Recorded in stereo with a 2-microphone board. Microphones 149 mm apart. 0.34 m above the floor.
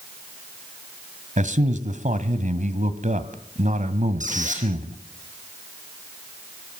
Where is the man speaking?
60° right (ahead or behind), 1.8 m.